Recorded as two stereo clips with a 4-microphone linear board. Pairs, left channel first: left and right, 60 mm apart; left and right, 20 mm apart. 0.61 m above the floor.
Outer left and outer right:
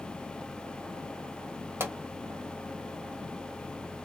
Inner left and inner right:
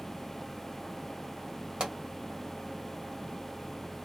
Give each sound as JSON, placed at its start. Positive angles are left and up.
{"t": 1.8, "sound": "a pop", "side_deg": -50, "distance_m": 1.4}